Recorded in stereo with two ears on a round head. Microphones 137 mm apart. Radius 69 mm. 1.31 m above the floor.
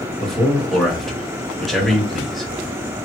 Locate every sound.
0.2 s a man speaking: centre (ahead or behind), 1.6 m